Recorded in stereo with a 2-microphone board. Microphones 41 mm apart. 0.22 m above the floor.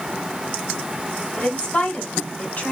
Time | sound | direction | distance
1.4 | a woman speaking | 25° left (ahead or behind) | 1.9 m